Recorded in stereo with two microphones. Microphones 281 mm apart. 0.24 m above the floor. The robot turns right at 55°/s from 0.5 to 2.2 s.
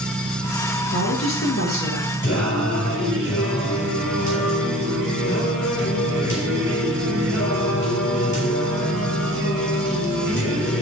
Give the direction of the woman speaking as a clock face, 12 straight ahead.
9 o'clock.